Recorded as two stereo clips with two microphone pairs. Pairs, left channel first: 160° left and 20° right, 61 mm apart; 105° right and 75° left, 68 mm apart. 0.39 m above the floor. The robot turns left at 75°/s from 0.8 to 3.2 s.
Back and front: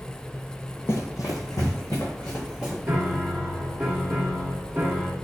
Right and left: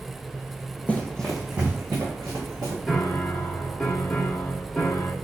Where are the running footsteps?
170° right, 0.6 m; by 2.8 s 65° left, 3.5 m.